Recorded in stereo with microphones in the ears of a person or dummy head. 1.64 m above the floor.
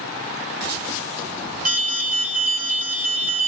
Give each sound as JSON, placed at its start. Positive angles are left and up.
{"t": 1.6, "sound": "an alarm", "side_deg": -50, "distance_m": 4.0}